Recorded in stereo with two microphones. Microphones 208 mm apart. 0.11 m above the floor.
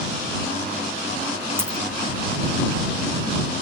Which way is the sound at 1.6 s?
10° right (ahead or behind).